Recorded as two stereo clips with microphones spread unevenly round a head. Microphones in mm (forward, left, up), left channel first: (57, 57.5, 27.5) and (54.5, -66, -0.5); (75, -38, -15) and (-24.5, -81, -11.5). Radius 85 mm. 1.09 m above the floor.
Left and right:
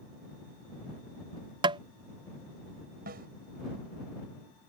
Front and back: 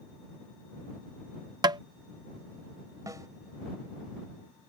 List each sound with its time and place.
1.6 s tapping: 115° right
3.1 s a snare drum: 100° right